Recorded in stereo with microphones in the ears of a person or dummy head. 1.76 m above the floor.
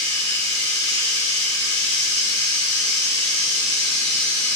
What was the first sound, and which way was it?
Running water, 30° left (ahead or behind).